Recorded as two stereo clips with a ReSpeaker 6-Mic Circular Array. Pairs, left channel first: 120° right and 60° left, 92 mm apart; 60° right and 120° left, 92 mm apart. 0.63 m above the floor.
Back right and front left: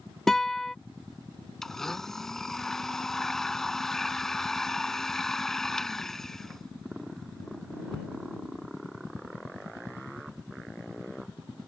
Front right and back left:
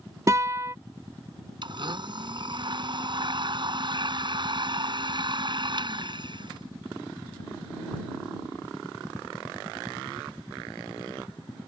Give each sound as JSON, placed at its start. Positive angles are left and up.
{"t": 0.3, "sound": "a guitar", "azimuth_deg": 155}
{"t": 1.6, "sound": "a blender", "azimuth_deg": 155}